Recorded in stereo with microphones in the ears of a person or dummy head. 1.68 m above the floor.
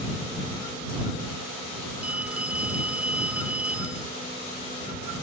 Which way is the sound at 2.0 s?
10° right (ahead or behind).